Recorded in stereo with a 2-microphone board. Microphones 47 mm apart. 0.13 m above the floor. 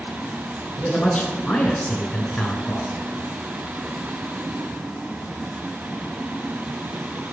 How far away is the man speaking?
About 1.7 m.